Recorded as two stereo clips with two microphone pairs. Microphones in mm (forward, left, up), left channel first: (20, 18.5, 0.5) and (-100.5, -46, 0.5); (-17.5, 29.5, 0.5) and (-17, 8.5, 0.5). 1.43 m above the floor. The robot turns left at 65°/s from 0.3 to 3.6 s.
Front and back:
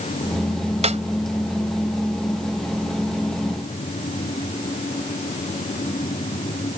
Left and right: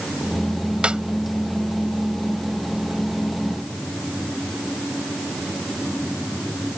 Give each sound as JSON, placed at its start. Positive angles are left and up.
{"t": 0.8, "sound": "a snare drum", "azimuth_deg": -120}